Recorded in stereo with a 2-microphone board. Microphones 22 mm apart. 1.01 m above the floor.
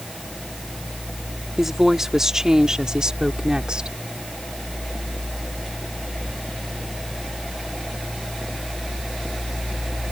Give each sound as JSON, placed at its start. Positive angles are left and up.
{"t": 1.6, "sound": "a woman speaking", "side_deg": -10}